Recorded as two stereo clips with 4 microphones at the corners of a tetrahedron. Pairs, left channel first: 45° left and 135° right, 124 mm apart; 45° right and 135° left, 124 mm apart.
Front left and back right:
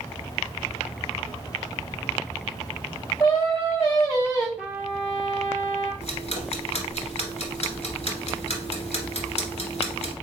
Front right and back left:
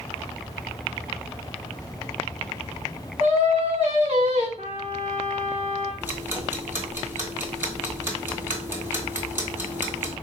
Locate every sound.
3.2 s singing: 105° left, 2.5 m
4.6 s a trumpet: 135° left, 2.5 m
6.0 s ticking: 65° left, 1.3 m